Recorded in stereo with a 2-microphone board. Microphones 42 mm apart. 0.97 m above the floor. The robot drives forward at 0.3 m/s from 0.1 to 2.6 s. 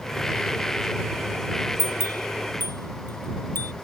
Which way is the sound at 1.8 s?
65° left (ahead or behind).